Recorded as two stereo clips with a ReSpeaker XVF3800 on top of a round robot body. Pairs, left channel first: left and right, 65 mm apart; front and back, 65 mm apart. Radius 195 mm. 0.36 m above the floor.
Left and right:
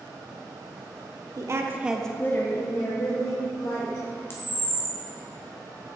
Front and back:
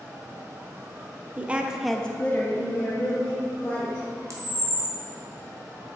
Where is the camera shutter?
140° left, 1.2 m.